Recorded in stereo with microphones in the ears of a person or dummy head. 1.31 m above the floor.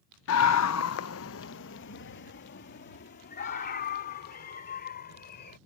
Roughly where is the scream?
Left.